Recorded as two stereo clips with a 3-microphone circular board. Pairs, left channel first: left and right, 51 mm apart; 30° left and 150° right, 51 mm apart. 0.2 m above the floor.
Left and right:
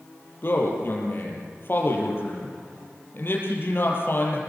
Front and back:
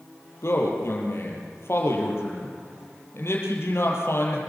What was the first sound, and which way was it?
A man speaking, 50° left.